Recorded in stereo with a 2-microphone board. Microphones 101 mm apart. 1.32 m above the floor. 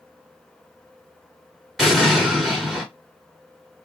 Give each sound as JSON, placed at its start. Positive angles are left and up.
{"t": 1.8, "sound": "an explosion", "side_deg": 0, "distance_m": 1.9}